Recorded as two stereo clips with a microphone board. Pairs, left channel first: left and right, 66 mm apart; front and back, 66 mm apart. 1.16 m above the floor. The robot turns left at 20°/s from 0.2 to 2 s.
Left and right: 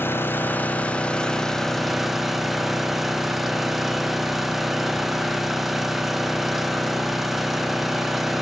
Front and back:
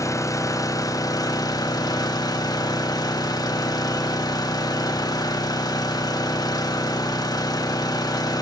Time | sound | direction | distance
0.0 | an engine running | 35° left | 1.2 m